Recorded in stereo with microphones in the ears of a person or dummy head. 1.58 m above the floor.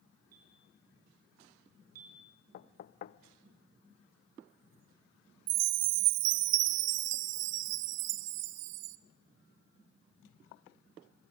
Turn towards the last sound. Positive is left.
turn(degrees=-65)  # may be behind; listen again after turning